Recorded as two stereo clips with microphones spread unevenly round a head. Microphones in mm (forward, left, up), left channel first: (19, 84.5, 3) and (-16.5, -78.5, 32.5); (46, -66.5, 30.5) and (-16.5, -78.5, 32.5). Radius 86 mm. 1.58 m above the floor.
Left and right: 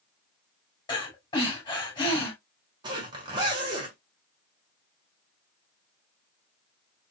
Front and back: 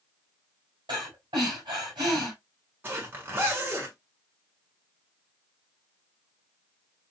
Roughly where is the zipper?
Behind right.